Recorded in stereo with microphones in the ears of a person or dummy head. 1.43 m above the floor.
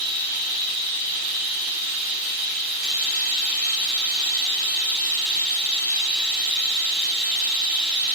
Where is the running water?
50° right (ahead or behind), 1.1 m.